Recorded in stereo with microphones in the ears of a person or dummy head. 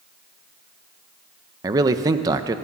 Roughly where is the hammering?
No hammering in this recording.